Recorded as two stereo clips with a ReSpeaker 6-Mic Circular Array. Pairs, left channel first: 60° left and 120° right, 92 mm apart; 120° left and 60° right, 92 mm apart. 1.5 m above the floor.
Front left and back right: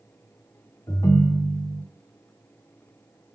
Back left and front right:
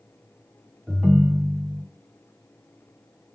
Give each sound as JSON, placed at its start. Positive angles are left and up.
{"t": 0.9, "sound": "a ringtone", "azimuth_deg": 25, "distance_m": 0.6}